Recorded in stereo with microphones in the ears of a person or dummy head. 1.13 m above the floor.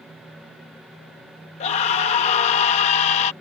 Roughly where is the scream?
Left.